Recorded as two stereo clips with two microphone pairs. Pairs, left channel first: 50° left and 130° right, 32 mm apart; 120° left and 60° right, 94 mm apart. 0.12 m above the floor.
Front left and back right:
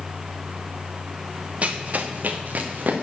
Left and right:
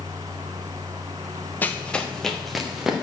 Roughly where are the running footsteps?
Behind.